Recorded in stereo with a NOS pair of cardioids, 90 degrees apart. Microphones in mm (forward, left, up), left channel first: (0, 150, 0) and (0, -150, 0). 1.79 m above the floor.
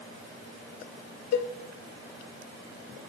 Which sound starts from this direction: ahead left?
A cowbell, at 1.3 s.